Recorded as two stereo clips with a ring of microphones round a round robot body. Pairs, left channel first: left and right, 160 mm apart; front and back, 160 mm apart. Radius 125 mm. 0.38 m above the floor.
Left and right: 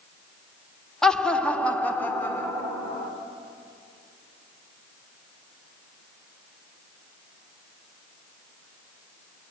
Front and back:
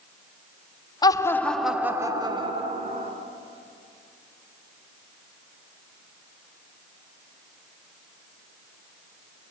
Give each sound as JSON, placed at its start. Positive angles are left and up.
{"t": 1.0, "sound": "laughter", "azimuth_deg": 10, "distance_m": 1.1}